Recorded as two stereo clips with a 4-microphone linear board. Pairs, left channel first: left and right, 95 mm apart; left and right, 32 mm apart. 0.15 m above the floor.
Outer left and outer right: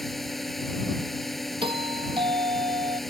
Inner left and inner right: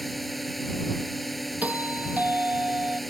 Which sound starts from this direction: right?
A doorbell, at 1.6 s.